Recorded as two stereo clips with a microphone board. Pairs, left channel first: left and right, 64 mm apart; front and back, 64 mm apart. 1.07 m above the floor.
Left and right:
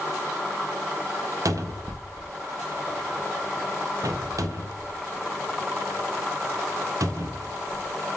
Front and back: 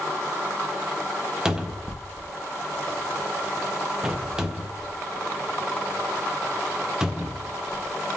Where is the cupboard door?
105° right, 0.5 m.